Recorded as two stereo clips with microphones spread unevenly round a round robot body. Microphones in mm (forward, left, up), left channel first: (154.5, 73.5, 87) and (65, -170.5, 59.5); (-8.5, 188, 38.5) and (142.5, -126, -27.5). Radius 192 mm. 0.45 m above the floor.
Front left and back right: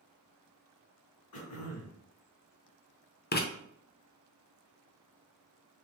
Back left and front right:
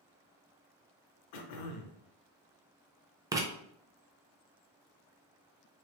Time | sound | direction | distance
1.3 | throat clearing | 110° left | 0.8 m
3.3 | writing | 10° left | 0.8 m